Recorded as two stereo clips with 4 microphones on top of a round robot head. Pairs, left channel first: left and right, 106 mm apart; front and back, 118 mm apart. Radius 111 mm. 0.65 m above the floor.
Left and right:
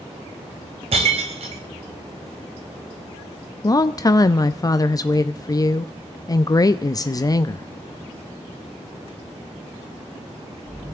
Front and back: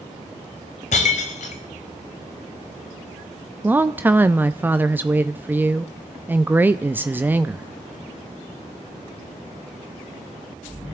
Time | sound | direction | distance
0.9 | breaking glass | 40° right | 1.0 m
3.6 | a woman speaking | 115° left | 0.6 m